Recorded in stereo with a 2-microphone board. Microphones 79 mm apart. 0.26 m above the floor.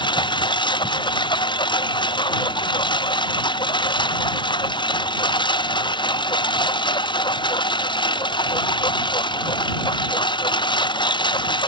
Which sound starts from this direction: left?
A lawn mower, at 0.0 s.